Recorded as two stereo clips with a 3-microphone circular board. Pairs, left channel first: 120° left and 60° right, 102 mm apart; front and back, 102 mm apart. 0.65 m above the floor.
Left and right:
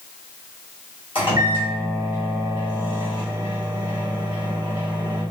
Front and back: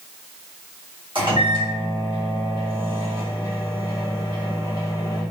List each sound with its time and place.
1.1 s a microwave: 145° left, 1.9 m